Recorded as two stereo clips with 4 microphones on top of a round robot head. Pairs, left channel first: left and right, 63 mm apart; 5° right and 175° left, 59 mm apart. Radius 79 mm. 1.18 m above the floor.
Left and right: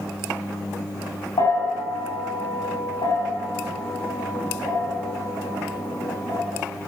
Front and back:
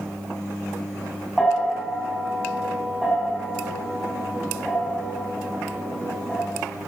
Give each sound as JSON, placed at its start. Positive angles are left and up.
{"t": 1.4, "sound": "a bell", "azimuth_deg": 80, "distance_m": 6.5}